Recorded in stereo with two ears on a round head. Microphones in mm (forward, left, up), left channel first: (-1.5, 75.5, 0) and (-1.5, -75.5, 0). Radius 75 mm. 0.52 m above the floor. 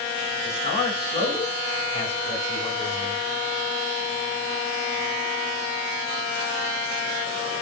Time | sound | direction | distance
0.5 | a man speaking | 40° left (ahead or behind) | 6 m